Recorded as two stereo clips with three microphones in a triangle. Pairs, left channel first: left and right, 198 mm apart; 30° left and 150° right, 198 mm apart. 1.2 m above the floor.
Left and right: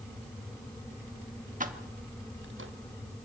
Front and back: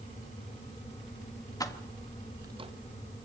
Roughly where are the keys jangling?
Ahead right.